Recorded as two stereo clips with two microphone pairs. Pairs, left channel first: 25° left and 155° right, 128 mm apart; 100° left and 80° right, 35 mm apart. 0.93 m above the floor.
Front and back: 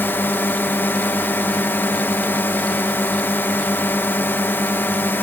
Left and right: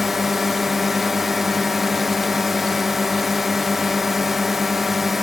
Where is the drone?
10° right.